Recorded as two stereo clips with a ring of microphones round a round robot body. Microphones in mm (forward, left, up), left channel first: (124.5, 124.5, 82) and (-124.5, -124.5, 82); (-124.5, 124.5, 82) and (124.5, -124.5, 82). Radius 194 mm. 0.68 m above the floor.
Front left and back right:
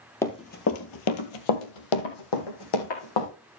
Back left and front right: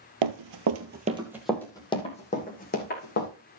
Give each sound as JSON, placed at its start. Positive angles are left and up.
{"t": 0.2, "sound": "running footsteps", "azimuth_deg": -35, "distance_m": 1.3}